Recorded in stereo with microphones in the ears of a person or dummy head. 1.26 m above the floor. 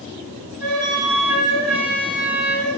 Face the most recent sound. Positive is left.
turn(degrees=0)  # may be behind; listen again after turning